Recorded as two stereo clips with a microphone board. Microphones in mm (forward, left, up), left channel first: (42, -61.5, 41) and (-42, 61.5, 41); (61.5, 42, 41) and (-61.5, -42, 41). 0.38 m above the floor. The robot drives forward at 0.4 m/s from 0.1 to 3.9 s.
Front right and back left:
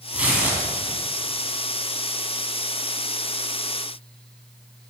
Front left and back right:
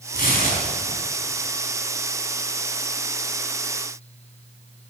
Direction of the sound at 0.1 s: 40° left.